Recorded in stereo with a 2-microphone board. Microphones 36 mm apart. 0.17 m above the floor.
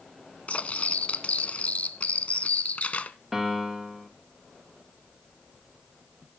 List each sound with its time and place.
0.5 s cutlery clinking: 40° left (ahead or behind), 0.9 m
3.3 s a piano: 5° right (ahead or behind), 3.5 m